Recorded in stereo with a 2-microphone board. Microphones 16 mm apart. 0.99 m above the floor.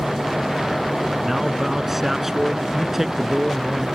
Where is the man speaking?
15° right (ahead or behind); by 3.9 s 20° right (ahead or behind).